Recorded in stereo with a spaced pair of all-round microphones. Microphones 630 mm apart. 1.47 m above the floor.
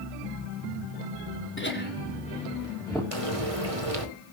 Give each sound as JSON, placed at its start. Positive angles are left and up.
{"t": 1.6, "sound": "laughter", "side_deg": 15, "distance_m": 4.0}
{"t": 3.1, "sound": "frying", "side_deg": -55, "distance_m": 2.5}